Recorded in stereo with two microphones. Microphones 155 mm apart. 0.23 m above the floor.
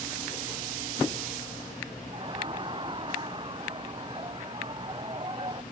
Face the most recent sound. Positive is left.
turn(degrees=-35)  # may be behind; listen again after turning